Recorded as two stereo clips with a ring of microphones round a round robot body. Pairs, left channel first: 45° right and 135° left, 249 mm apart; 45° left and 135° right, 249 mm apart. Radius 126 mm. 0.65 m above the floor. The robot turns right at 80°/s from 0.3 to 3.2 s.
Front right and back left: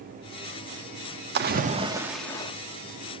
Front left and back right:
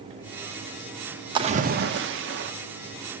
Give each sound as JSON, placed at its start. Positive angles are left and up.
{"t": 1.4, "sound": "a splash", "azimuth_deg": 160, "distance_m": 1.2}